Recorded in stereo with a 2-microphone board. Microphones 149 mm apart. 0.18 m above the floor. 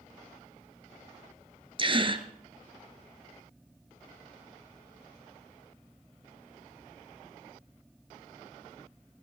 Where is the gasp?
35° right (ahead or behind), 1.3 m.